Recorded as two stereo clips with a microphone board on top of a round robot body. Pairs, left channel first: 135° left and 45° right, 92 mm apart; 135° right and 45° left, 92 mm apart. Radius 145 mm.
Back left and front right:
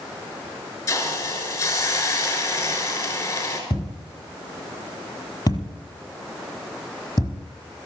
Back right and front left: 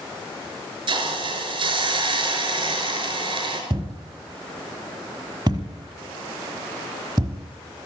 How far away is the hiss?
About 5.5 m.